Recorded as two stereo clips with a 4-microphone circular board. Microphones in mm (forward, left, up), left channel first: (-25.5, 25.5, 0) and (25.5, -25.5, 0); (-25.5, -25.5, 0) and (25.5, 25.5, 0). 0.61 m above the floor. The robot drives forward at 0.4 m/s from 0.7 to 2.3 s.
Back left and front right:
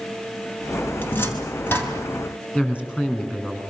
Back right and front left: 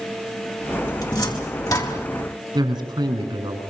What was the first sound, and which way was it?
A cupboard door, 165° right.